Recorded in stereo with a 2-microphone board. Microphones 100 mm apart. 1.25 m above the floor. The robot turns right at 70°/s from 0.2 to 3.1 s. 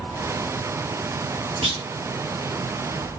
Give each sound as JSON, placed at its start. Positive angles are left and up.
{"t": 1.6, "sound": "a clunk", "side_deg": -75, "distance_m": 3.0}